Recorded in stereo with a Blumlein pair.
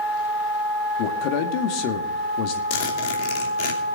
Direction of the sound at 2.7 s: 45° left.